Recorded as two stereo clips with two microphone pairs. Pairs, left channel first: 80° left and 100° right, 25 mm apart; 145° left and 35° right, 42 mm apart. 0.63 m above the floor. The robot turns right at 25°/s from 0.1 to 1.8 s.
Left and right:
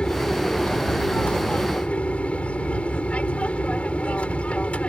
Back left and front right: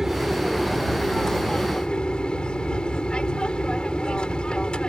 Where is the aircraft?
40° left; by 4.9 s 85° left.